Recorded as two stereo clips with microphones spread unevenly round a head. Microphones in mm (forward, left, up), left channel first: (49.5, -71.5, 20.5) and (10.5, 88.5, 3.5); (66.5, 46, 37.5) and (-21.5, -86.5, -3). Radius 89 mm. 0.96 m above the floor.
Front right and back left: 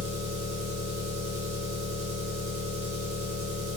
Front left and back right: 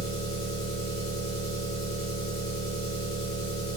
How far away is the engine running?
About 0.8 m.